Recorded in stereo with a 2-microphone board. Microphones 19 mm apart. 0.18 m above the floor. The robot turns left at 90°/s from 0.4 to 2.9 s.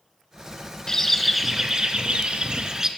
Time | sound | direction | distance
0.9 | a bird | 35° left | 0.5 m